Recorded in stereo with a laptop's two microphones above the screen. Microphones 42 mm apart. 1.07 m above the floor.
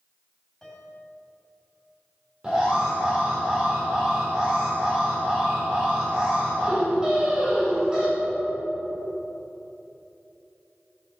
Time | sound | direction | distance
0.6 | a piano | 10° left (ahead or behind) | 2.5 m
2.4 | an alarm | 20° right (ahead or behind) | 4.5 m